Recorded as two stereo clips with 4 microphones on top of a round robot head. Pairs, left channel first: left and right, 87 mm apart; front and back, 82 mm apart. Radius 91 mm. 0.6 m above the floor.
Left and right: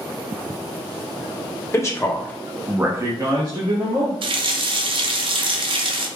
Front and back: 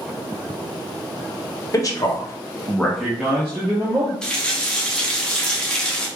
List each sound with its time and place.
1.7 s a man speaking: 40° left, 1.5 m; by 4.1 s 120° right, 1.9 m
4.2 s a running tap: 80° right, 0.7 m